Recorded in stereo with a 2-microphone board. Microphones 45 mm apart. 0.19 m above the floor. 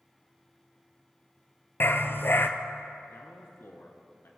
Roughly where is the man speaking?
Left.